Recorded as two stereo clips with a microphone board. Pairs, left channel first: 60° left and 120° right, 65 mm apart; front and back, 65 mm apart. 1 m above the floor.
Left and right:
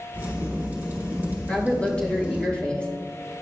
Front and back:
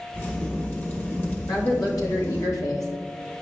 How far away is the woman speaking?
About 1.9 m.